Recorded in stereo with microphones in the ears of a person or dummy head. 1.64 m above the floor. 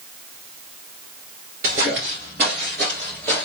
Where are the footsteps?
25° right (ahead or behind), 1.9 m; by 3.5 s 5° left (ahead or behind), 2 m.